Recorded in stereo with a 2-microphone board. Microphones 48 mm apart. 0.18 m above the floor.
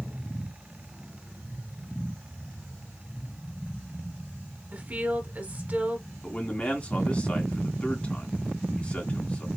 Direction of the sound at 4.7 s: 35° right (ahead or behind).